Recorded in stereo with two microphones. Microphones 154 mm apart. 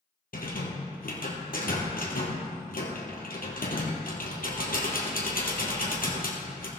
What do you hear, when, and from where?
0.3 s a rattle: 70° left (ahead or behind), 2.5 m